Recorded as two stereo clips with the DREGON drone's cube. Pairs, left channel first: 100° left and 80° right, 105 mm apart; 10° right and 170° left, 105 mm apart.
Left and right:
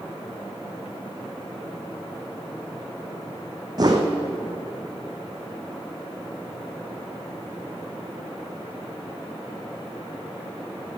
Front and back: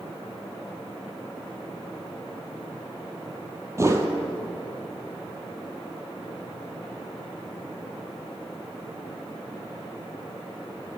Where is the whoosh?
130° right, 1.1 m.